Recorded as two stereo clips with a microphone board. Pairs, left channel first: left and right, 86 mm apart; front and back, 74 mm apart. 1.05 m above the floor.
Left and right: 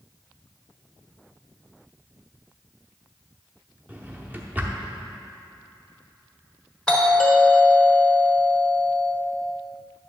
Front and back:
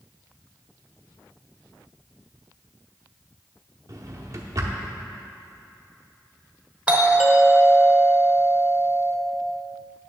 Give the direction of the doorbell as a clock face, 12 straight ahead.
7 o'clock.